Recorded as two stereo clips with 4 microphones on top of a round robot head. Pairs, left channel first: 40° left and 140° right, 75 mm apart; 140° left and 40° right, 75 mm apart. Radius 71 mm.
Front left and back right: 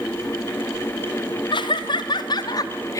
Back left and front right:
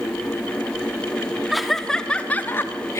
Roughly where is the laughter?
Ahead left.